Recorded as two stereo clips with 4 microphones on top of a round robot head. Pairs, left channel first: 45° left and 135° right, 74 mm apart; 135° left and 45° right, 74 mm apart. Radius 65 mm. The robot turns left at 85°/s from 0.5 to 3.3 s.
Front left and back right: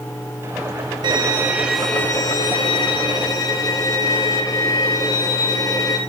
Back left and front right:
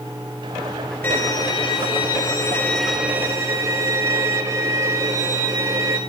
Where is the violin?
160° right, 3 m; by 6.0 s 5° left, 3 m.